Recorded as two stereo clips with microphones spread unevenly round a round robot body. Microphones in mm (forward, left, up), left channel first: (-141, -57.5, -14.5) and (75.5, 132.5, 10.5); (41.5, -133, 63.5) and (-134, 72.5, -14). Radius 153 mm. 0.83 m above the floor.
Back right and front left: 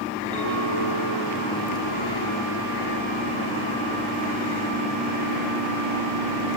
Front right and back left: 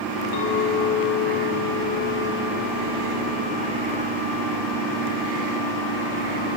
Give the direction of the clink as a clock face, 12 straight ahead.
2 o'clock.